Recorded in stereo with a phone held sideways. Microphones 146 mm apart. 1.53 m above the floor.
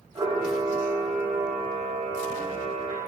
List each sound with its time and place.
0.1 s a camera shutter: 30° right (ahead or behind), 4 m